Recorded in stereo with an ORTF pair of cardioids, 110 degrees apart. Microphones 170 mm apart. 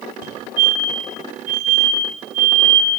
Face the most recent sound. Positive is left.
turn(degrees=-60)